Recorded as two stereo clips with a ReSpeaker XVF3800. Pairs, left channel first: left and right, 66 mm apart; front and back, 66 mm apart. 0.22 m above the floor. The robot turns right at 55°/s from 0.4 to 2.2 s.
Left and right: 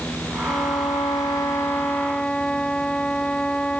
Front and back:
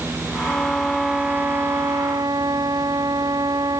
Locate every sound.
0.5 s a violin: 70° left; by 3.8 s 165° left